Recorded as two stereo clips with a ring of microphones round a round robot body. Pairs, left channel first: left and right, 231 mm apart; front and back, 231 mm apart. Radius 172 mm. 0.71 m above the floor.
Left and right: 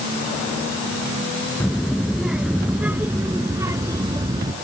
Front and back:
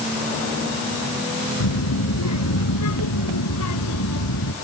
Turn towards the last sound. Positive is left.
turn(degrees=-20)